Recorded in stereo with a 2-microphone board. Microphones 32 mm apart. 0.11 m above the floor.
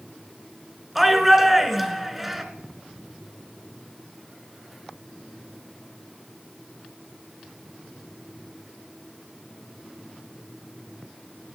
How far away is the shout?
About 1.2 m.